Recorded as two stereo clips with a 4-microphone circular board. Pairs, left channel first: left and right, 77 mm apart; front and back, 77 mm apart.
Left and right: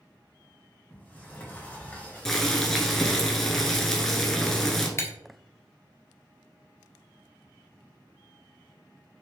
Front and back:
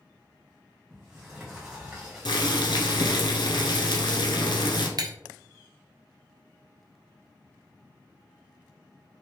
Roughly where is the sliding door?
Left.